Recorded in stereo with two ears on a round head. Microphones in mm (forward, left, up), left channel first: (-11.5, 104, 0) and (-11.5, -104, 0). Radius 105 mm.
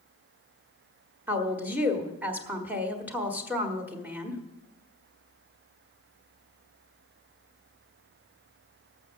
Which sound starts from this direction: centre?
A woman speaking, at 1.3 s.